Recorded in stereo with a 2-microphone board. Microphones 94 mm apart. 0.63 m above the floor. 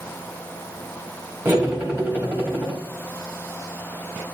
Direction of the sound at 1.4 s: 20° right (ahead or behind).